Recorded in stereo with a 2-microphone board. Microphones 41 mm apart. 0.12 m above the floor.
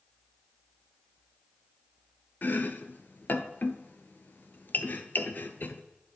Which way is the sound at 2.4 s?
50° left (ahead or behind).